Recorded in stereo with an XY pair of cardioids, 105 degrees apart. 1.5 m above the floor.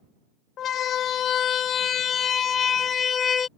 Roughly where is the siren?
Ahead left.